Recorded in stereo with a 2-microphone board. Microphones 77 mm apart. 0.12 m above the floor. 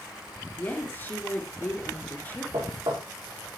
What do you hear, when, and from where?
0.6 s a woman speaking: 25° left (ahead or behind), 2 m
2.5 s knocking: 80° right, 5.5 m